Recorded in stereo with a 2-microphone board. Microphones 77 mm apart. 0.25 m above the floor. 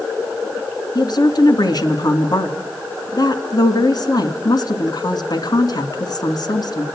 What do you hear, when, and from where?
0.9 s a woman speaking: 55° left (ahead or behind), 2.5 m